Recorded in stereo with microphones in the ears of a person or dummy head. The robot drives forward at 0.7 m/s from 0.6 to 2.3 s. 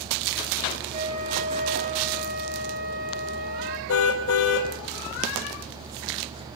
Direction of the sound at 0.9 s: 45° right (ahead or behind).